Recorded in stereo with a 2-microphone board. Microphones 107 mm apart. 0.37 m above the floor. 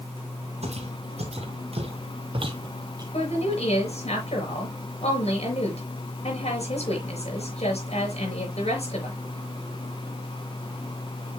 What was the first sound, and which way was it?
Footsteps, 80° right.